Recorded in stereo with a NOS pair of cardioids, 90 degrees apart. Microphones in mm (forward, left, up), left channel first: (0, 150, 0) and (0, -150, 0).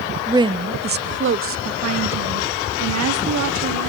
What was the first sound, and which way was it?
A woman speaking, 10° right.